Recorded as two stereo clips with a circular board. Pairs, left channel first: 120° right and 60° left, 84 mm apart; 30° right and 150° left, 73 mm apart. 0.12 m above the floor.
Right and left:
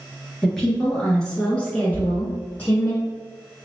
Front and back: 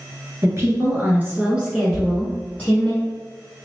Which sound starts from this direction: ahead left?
Knocking, at 1.9 s.